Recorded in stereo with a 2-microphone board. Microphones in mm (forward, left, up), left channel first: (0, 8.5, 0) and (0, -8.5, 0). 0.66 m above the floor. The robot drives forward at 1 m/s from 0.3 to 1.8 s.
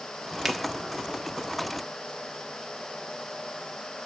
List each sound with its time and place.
0.5 s a finger snap: 10° right (ahead or behind), 1.2 m